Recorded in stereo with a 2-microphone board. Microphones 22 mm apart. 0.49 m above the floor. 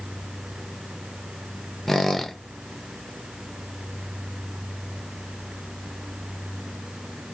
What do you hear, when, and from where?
1.9 s a squeak: 10° left (ahead or behind), 0.6 m